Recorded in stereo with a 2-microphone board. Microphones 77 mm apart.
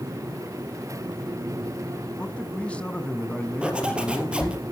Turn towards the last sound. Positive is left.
turn(degrees=-15)  # may be behind; listen again after turning